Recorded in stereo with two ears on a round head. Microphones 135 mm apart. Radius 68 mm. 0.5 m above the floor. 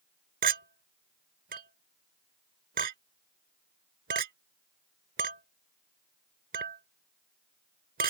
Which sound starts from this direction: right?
A clink, at 0.4 s.